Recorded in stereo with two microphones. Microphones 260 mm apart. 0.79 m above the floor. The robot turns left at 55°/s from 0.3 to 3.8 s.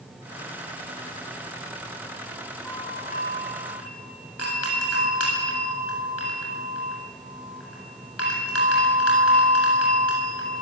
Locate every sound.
2.6 s a doorbell: 175° left, 8 m; by 10.6 s 115° left, 8 m